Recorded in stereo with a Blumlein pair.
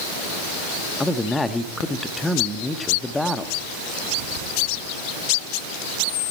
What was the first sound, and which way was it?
A man speaking, 10° left.